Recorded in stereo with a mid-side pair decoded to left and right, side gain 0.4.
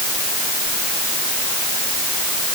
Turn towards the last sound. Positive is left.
No sound to turn to.